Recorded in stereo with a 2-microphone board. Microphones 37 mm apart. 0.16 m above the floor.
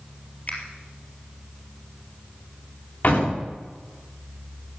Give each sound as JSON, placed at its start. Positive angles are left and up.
{"t": 0.5, "sound": "a finger snap", "side_deg": 45, "distance_m": 3.5}
{"t": 3.0, "sound": "a door slam", "side_deg": 60, "distance_m": 8.0}